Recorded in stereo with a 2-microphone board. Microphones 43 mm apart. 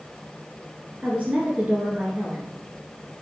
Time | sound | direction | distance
1.0 | a woman speaking | 35° right (ahead or behind) | 1.7 m